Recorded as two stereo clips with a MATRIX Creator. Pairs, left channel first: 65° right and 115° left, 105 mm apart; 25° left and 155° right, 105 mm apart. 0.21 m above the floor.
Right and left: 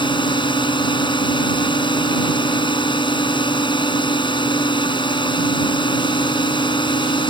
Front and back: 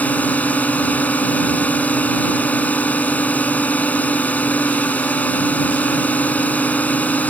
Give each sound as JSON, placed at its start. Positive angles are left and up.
{"t": 0.0, "sound": "a drone", "azimuth_deg": -50}